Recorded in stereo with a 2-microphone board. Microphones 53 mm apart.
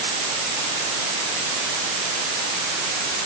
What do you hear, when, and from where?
Only background noise.